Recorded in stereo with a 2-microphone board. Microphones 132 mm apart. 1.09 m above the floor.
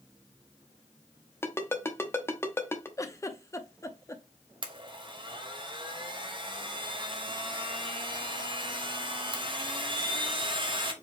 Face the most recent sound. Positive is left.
turn(degrees=-40)  # may be behind; listen again after turning